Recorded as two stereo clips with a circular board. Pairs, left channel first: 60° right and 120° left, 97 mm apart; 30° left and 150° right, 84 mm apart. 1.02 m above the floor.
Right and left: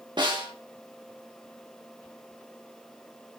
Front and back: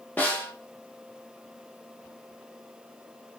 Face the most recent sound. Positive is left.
turn(degrees=95)